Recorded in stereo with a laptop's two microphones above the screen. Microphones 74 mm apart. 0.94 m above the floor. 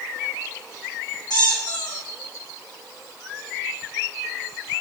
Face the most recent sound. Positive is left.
turn(degrees=75)  # may be behind; listen again after turning